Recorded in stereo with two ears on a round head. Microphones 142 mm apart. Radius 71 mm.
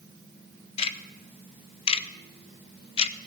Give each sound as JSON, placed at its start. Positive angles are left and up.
{"t": 0.8, "sound": "ticking", "side_deg": 35, "distance_m": 0.5}